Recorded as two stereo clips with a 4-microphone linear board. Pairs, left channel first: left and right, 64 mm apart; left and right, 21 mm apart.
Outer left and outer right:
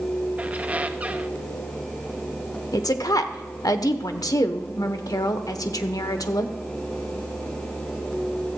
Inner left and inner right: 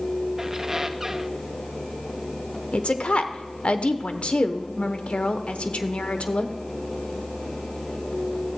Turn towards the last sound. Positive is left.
turn(degrees=75)  # may be behind; listen again after turning